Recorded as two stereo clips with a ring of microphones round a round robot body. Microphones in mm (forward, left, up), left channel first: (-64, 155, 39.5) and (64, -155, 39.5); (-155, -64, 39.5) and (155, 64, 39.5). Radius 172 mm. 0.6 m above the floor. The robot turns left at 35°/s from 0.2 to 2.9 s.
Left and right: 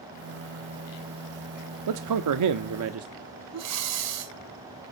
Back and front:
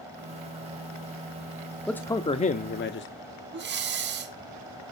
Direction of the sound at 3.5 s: 35° right.